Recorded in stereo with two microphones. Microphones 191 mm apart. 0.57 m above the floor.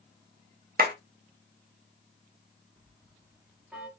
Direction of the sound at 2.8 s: 5° right (ahead or behind).